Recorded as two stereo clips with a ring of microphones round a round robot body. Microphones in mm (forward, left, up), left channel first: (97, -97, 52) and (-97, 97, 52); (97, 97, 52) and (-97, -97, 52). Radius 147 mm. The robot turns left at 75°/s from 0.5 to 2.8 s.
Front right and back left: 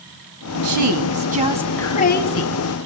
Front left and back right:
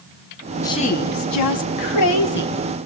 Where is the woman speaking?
125° left, 3.5 m; by 2.6 s 20° right, 3.5 m.